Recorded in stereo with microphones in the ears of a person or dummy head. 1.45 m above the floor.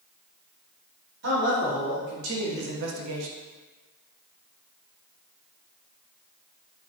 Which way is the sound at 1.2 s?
60° right (ahead or behind).